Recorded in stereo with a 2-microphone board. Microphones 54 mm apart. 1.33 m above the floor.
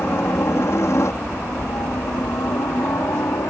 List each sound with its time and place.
0.0 s a helicopter: 45° left (ahead or behind); by 3.5 s 70° left (ahead or behind)